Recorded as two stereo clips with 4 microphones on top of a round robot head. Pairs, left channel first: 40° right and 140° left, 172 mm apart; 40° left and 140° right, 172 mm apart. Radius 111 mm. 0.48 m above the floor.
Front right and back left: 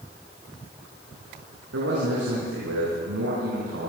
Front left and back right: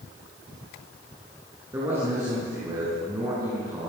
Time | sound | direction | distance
1.7 | a man speaking | 145° left | 6 m